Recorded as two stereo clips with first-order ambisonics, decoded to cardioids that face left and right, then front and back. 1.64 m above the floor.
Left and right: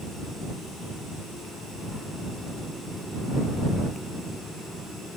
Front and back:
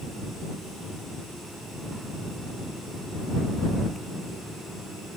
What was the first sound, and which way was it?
Only background noise.